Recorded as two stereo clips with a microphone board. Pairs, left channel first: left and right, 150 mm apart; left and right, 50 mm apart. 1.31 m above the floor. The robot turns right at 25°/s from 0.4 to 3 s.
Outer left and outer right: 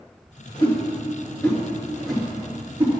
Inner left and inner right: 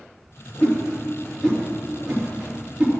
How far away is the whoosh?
About 2.5 m.